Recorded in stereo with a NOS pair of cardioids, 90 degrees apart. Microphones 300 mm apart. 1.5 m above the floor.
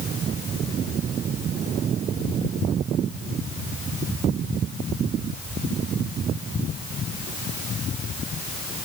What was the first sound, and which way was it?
Only background noise.